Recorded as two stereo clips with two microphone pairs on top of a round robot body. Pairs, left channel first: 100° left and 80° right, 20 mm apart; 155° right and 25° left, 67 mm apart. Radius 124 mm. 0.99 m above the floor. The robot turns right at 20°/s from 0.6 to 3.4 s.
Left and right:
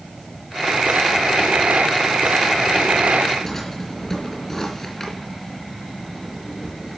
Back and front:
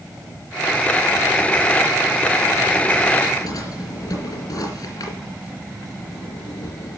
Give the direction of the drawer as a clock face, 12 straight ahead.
6 o'clock.